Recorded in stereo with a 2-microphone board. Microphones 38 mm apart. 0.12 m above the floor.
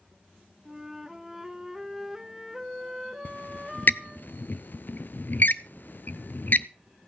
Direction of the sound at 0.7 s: 10° right (ahead or behind).